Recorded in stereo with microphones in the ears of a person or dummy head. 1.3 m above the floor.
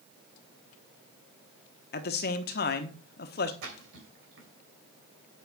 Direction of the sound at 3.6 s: 65° right (ahead or behind).